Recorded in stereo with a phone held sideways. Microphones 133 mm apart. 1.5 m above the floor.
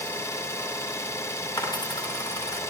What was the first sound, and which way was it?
An engine running, 20° left (ahead or behind).